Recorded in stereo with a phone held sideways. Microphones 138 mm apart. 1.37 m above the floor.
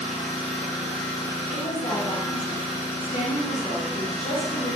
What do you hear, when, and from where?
0.0 s an engine running: 45° left (ahead or behind), 0.9 m
1.5 s a woman speaking: 50° left (ahead or behind), 0.7 m